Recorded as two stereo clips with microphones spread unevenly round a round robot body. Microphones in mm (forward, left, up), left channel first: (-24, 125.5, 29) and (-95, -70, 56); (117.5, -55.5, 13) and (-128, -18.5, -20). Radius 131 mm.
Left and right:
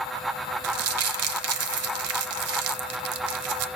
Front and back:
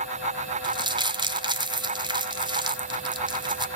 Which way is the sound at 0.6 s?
115° right.